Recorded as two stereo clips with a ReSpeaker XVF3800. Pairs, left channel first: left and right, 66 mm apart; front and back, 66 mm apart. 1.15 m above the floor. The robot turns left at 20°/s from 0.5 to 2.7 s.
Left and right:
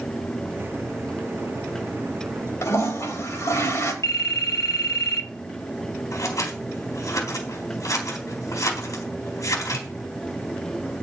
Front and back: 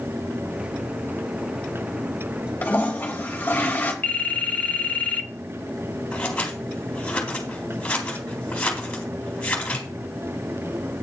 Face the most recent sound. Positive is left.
turn(degrees=70)